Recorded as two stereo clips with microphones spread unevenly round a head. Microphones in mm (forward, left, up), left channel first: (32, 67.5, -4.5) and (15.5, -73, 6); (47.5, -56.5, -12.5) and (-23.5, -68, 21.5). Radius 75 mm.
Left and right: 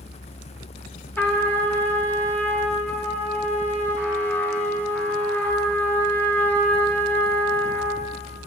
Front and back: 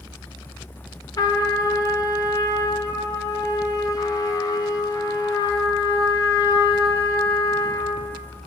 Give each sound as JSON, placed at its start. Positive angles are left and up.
{"t": 1.2, "sound": "a trumpet", "azimuth_deg": 5, "distance_m": 1.4}